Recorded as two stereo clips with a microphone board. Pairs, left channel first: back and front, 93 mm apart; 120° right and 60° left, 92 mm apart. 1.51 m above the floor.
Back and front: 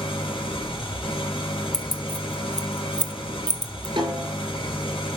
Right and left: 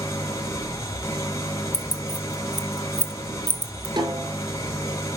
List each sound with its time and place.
0.0 s an engine running: 175° right, 3.5 m
1.7 s keys jangling: 95° right, 1.3 m
4.0 s a snare drum: 30° left, 5 m